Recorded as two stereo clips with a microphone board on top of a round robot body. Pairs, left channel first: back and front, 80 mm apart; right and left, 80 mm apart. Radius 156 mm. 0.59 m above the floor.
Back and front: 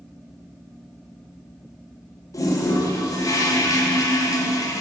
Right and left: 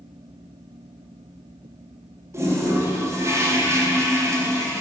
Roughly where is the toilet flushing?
Behind left.